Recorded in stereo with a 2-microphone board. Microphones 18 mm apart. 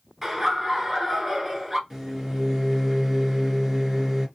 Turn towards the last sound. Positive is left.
turn(degrees=-10)  # may be behind; listen again after turning